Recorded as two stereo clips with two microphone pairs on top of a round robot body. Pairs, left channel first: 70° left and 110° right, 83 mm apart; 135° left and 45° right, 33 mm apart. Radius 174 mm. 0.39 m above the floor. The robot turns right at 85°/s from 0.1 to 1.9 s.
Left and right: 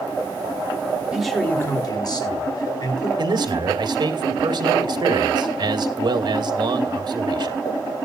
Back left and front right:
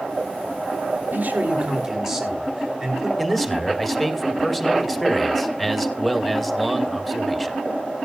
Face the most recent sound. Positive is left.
turn(degrees=-135)